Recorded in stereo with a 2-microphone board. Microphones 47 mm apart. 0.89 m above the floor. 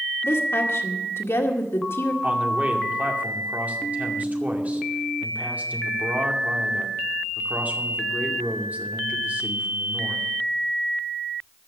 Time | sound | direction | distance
0.2 | a woman speaking | 75° left (ahead or behind) | 2.0 m
2.2 | a man speaking | 35° right (ahead or behind) | 2 m